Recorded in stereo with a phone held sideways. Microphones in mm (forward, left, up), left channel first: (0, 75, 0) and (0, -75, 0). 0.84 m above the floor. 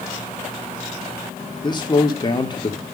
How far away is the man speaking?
About 2 m.